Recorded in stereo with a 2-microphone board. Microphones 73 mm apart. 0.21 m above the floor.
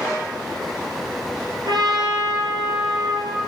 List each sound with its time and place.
1.6 s a trumpet: 75° right (ahead or behind), 3.5 m